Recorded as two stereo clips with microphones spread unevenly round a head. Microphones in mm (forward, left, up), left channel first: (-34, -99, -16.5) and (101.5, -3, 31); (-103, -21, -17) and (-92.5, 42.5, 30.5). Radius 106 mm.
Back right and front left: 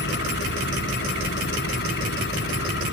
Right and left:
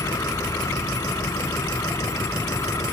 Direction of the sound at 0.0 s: 135° right.